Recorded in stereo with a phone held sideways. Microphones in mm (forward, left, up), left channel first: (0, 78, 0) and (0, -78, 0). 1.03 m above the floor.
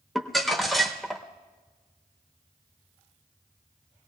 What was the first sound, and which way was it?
Crumpling, centre (ahead or behind).